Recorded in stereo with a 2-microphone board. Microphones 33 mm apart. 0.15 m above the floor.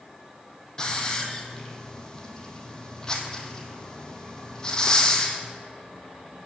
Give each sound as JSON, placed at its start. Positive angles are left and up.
{"t": 0.8, "sound": "a hiss", "side_deg": 20, "distance_m": 1.5}